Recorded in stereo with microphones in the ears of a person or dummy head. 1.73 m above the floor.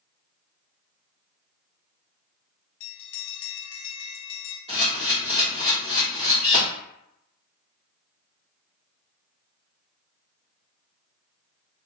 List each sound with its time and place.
2.8 s a bell: 75° left (ahead or behind), 0.8 m
4.7 s a camera shutter: 25° right (ahead or behind), 1.6 m